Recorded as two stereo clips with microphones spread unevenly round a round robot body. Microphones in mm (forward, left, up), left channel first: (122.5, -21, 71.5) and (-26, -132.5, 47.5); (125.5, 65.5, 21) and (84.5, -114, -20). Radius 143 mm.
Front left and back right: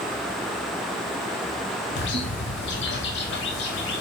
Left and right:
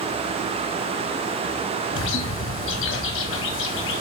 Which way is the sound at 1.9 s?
70° left.